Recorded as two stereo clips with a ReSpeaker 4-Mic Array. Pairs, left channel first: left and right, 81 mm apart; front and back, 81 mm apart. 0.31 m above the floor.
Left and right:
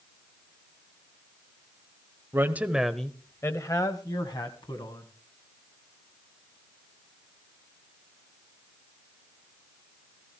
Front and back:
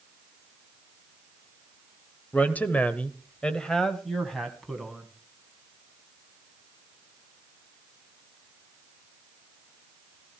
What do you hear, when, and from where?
2.3 s a woman speaking: 55° right, 1.2 m; by 5.1 s 90° left, 2.5 m